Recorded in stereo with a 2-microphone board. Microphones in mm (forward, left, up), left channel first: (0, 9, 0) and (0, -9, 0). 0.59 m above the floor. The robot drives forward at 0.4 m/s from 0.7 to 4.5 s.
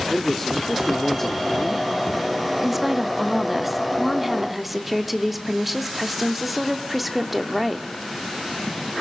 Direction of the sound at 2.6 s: 10° right (ahead or behind).